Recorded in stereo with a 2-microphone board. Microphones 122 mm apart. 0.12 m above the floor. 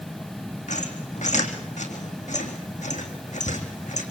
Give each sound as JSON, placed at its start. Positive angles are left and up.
{"t": 0.7, "sound": "a squeak", "side_deg": 80, "distance_m": 4.0}